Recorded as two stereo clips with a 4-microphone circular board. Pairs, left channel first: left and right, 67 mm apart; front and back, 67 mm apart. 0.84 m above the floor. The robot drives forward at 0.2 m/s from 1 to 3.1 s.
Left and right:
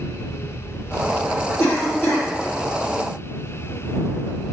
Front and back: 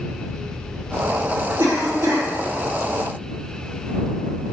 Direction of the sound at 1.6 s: 145° left.